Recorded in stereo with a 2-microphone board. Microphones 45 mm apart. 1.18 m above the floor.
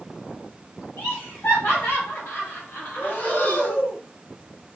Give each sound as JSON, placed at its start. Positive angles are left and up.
{"t": 1.0, "sound": "laughter", "side_deg": 65, "distance_m": 1.0}
{"t": 3.0, "sound": "breathing", "side_deg": 45, "distance_m": 1.1}